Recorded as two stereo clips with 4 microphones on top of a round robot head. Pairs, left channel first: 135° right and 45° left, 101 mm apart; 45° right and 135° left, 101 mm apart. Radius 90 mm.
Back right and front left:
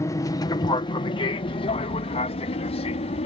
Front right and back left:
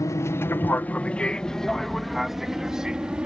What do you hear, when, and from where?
0.0 s an aircraft: 90° right; by 3.3 s 145° right